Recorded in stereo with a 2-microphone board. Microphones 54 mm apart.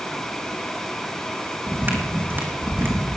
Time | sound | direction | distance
1.7 | footsteps | 40° right (ahead or behind) | 2 m